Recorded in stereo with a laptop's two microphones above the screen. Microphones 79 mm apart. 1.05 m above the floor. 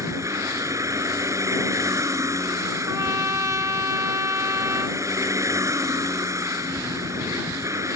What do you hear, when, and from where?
0.0 s a vehicle: 40° right (ahead or behind)
2.9 s a trumpet: 45° right (ahead or behind)